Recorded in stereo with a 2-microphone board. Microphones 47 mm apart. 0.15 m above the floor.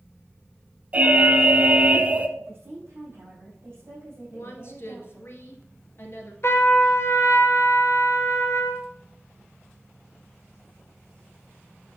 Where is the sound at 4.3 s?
50° left (ahead or behind), 2 m.